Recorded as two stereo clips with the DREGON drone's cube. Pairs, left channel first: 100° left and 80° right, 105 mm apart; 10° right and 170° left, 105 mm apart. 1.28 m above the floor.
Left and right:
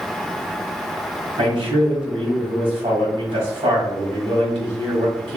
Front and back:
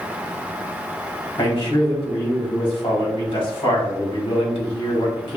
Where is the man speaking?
45° right, 2 m.